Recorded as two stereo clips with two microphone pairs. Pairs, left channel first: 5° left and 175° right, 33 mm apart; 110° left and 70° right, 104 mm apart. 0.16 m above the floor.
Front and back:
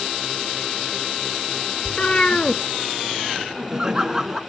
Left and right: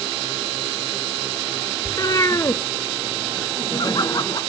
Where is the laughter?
120° left, 1.7 m.